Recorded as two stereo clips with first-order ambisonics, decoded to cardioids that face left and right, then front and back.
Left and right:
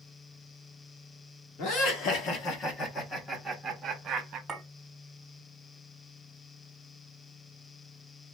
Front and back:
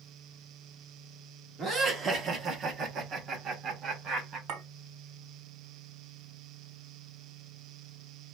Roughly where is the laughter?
Left.